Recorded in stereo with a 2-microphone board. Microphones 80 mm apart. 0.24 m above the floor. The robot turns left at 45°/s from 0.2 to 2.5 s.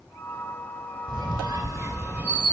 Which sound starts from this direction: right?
A squeak, at 1.1 s.